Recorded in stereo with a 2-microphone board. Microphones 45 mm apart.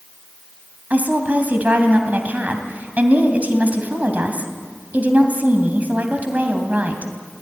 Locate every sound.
0.9 s a woman speaking: 40° right (ahead or behind), 2.5 m